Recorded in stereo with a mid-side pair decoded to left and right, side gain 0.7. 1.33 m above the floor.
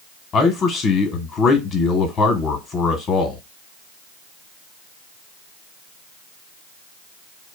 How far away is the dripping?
No dripping in this recording.